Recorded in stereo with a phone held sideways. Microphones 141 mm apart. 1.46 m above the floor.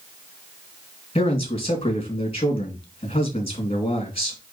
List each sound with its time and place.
1.1 s a man speaking: 40° left (ahead or behind), 3 m